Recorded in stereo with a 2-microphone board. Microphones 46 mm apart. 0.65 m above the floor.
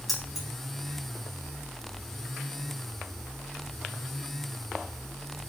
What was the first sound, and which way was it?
Keys jangling, centre (ahead or behind).